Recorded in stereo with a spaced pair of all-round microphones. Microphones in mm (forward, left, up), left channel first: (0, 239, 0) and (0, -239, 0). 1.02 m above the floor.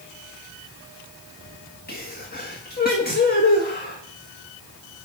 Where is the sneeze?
20° left (ahead or behind), 1.5 m.